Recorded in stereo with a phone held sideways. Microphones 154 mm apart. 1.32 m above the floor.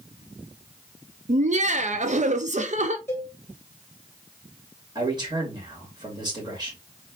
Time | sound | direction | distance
1.3 | laughter | 50° right (ahead or behind) | 0.5 m
3.1 | a cowbell | 15° left (ahead or behind) | 1.4 m
5.0 | a man speaking | 30° right (ahead or behind) | 2.5 m